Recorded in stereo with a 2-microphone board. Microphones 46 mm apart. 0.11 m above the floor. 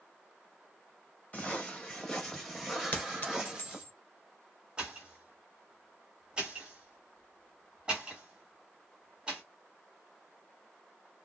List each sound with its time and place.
1.3 s footsteps: 30° left (ahead or behind), 1.6 m; by 3.9 s 15° right (ahead or behind), 1.8 m
2.9 s a clink: 40° left (ahead or behind), 1.0 m
4.8 s a pop: 20° right (ahead or behind), 1.6 m